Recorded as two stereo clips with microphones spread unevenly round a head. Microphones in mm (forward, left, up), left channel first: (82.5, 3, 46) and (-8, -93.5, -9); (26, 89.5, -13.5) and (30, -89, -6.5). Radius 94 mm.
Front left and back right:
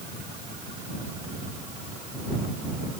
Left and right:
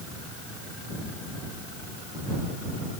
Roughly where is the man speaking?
I don't hear a man speaking.